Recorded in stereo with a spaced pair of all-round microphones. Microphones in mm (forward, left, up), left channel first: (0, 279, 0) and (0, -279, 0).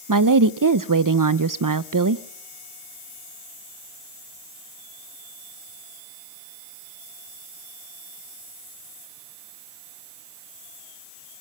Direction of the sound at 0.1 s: 35° right (ahead or behind).